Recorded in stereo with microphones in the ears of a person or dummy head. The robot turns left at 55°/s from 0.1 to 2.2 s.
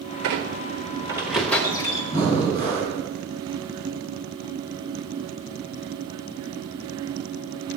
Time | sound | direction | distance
0.2 | a squeak | 115° right | 1.0 m
2.1 | breathing | 10° left (ahead or behind) | 6 m